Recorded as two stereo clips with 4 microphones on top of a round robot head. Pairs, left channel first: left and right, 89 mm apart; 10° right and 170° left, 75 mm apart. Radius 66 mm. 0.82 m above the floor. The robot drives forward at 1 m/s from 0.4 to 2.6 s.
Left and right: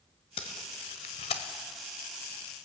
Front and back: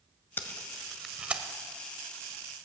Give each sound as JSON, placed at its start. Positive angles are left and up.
{"t": 0.4, "sound": "tape being pulled", "azimuth_deg": 50, "distance_m": 1.3}